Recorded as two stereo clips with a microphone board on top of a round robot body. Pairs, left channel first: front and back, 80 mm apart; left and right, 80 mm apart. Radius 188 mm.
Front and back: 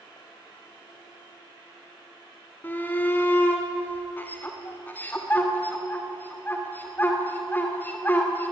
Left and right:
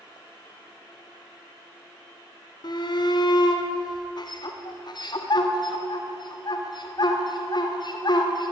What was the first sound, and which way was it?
A shout, 65° left.